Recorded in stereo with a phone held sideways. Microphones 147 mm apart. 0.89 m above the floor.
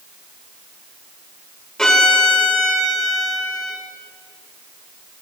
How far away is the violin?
About 2 m.